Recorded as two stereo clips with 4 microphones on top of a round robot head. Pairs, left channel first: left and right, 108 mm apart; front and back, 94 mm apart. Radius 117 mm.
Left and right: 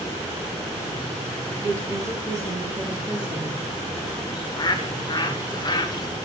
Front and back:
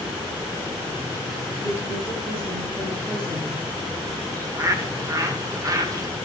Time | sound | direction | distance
1.6 | a woman speaking | 150° right | 5 m
4.3 | a bird | 135° left | 1.5 m